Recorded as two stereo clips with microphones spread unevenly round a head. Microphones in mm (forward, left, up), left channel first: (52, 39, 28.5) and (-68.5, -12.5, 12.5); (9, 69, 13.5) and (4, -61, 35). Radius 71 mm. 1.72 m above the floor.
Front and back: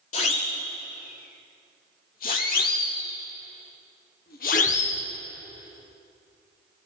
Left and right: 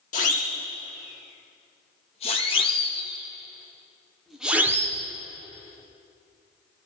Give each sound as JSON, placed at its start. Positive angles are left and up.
{"t": 0.1, "sound": "a siren", "azimuth_deg": 55, "distance_m": 7.0}